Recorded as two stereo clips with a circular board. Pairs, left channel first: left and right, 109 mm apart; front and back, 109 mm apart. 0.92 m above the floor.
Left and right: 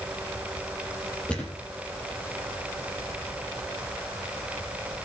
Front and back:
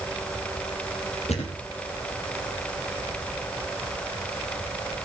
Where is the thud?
10° left, 5 m.